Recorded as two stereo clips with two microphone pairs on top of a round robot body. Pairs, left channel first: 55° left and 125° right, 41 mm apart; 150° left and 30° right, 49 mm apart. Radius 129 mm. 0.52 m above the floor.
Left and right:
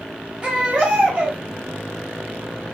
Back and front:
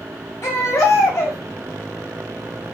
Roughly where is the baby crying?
Behind.